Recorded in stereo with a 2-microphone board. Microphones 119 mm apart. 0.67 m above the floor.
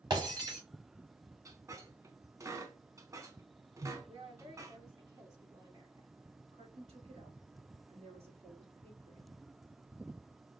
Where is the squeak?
25° right (ahead or behind), 0.7 m.